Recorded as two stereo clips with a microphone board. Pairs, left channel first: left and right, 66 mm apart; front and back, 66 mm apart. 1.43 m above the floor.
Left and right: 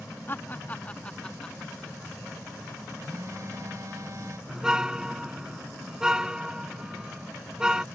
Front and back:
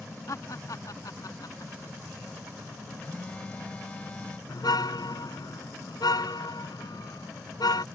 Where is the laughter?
35° left; by 2.0 s 5° left.